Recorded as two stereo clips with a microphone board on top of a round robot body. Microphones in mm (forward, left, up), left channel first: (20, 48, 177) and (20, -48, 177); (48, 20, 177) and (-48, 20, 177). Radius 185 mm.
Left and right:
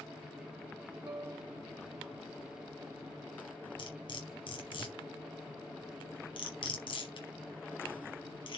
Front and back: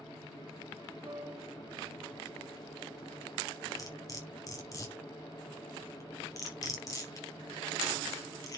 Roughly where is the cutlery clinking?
Ahead left.